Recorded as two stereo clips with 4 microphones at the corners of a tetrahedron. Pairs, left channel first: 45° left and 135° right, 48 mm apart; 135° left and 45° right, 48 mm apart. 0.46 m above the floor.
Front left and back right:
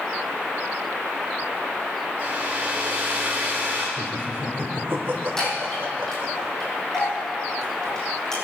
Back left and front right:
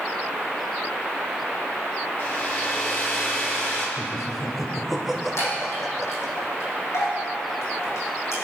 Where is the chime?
125° left, 6.5 m.